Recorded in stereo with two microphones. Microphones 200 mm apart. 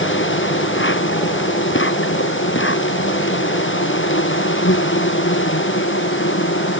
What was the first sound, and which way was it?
An insect, 90° left.